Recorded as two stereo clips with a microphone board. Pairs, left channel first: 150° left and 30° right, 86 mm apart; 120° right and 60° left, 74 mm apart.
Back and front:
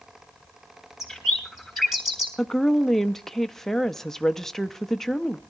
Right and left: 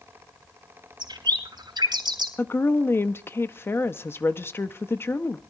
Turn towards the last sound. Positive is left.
turn(degrees=-130)